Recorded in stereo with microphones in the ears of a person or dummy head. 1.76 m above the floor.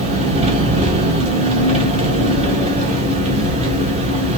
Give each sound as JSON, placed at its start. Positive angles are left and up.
{"t": 0.0, "sound": "an engine running", "side_deg": -35, "distance_m": 1.7}